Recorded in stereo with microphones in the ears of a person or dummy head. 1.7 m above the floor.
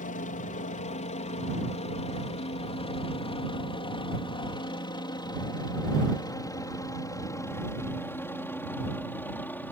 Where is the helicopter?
40° left (ahead or behind); by 9.7 s 10° left (ahead or behind).